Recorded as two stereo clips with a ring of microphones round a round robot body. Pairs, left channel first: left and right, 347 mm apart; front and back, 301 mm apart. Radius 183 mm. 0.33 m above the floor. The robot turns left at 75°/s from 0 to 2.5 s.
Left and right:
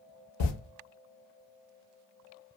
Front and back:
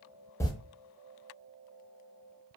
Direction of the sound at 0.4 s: 80° left.